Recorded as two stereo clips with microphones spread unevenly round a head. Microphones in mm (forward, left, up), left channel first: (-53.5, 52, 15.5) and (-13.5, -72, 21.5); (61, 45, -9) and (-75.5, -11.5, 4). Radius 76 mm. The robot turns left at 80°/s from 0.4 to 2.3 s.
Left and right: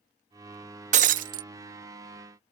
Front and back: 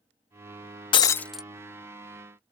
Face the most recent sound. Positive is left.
turn(degrees=-145)